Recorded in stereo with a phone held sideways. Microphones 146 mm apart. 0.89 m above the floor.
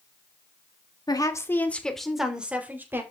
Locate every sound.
1.1 s a woman speaking: 30° left (ahead or behind), 2 m; by 3.0 s 15° right (ahead or behind), 3.5 m